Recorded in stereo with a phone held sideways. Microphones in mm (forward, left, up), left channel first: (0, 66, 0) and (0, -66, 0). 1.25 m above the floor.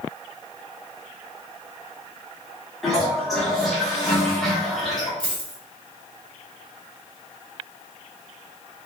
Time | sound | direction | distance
2.8 | a toilet flushing | centre (ahead or behind) | 0.9 m
5.2 | a dropped coin | 40° right (ahead or behind) | 1.2 m